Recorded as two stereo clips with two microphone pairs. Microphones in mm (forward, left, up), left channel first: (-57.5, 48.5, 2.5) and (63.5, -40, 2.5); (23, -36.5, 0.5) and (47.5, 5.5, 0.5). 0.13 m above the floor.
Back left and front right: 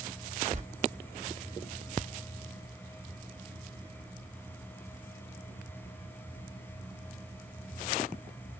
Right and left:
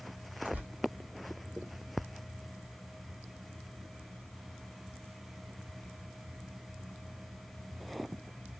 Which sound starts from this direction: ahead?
Tearing paper, at 0.5 s.